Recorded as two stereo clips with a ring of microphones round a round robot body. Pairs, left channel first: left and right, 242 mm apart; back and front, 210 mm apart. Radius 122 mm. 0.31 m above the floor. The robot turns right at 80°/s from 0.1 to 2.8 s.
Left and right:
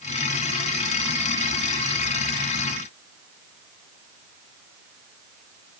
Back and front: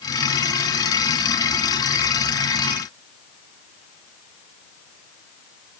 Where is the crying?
I don't hear crying.